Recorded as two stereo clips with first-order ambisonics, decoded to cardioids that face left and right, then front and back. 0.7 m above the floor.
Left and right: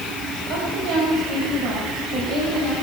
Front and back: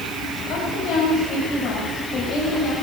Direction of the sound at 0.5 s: 55° right.